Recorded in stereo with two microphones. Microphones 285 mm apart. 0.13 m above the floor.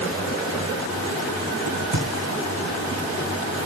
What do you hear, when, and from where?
1.7 s a crack: 75° right (ahead or behind), 4 m